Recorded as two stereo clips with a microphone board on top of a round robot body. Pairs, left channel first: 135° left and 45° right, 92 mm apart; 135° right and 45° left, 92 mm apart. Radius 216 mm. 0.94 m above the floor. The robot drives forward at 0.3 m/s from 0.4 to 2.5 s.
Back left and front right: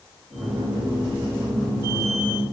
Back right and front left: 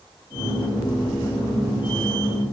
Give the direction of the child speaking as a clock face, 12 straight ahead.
No child speaking in this recording.